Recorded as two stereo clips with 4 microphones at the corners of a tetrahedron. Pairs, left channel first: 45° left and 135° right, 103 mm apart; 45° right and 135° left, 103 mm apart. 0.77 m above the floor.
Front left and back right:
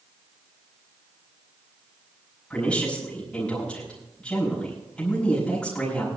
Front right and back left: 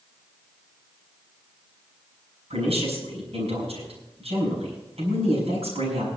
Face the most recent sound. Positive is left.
turn(degrees=125)